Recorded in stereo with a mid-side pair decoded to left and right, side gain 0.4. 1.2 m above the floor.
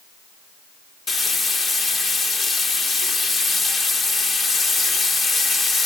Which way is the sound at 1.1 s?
50° left.